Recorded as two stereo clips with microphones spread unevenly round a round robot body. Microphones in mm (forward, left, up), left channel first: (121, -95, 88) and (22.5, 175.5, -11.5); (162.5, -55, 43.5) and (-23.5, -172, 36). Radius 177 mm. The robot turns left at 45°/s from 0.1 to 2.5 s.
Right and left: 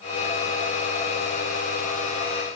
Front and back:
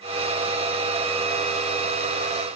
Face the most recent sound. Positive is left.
No sound to turn to.